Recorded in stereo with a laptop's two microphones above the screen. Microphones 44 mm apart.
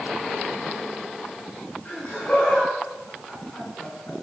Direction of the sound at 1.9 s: 25° left (ahead or behind).